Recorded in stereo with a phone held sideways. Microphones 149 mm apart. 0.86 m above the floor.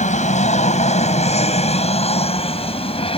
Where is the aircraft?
50° left (ahead or behind); by 3.2 s 40° left (ahead or behind).